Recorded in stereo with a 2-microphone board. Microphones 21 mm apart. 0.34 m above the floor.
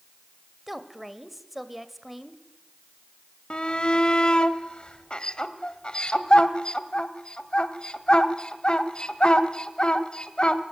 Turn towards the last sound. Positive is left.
turn(degrees=45)  # may be behind; listen again after turning